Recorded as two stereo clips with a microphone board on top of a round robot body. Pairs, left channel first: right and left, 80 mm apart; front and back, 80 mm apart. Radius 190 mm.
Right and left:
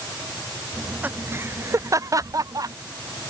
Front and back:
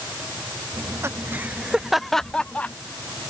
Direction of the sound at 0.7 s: 160° left.